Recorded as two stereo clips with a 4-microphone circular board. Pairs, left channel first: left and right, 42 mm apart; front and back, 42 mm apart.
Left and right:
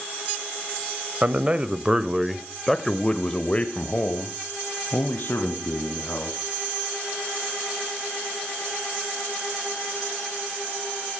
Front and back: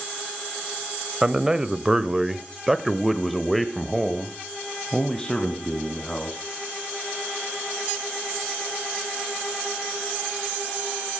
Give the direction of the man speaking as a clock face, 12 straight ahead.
4 o'clock.